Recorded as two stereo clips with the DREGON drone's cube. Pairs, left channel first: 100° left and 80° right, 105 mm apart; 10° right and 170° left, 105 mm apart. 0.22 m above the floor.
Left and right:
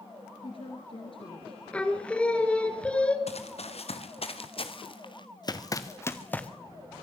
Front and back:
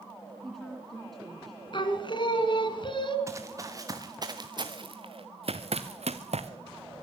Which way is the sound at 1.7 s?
25° left.